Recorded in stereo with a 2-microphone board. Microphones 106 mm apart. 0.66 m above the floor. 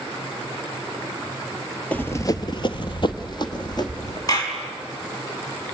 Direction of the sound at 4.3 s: 35° left (ahead or behind).